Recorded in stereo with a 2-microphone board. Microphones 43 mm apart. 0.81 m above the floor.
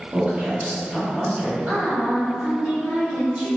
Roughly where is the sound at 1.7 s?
Right.